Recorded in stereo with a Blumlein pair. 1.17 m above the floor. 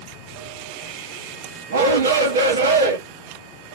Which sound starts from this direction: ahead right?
A shout, at 1.7 s.